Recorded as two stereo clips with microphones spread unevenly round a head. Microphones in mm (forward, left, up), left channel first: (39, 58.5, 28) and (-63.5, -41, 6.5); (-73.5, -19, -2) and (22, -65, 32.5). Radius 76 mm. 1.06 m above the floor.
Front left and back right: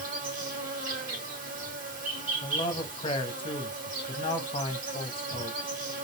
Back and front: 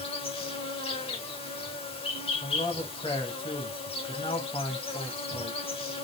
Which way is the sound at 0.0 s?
170° right.